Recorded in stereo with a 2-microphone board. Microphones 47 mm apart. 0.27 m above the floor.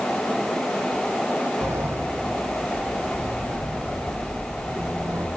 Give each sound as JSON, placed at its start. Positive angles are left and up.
{"t": 1.6, "sound": "a sliding door", "side_deg": -75, "distance_m": 5.5}